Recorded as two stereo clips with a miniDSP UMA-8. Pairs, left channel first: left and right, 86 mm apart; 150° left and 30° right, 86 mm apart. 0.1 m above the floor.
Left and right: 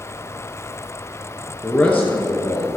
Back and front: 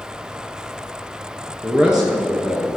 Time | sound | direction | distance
1.6 | a man speaking | 15° left | 1.6 m